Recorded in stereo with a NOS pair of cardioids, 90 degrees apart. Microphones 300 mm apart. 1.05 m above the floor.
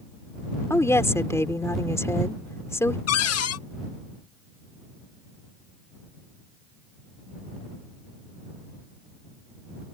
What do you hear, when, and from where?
0.7 s a woman speaking: 10° left
3.1 s a cupboard door: 55° left